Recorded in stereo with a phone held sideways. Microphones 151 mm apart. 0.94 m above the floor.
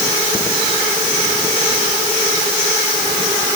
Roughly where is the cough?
I don't hear a cough.